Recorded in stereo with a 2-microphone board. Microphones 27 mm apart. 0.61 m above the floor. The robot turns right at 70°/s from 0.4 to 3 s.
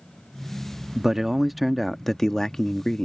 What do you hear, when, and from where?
0.9 s a man speaking: 20° right (ahead or behind); by 3.1 s 25° left (ahead or behind)